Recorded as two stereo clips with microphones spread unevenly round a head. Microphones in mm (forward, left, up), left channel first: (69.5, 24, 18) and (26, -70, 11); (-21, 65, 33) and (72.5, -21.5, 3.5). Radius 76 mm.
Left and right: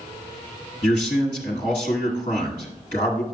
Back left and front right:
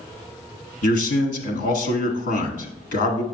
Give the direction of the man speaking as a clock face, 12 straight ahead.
8 o'clock.